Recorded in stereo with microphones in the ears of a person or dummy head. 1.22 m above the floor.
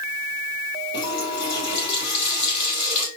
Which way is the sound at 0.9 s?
35° left (ahead or behind).